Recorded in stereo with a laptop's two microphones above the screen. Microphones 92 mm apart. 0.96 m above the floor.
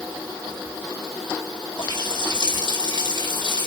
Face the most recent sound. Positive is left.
turn(degrees=60)  # may be behind; listen again after turning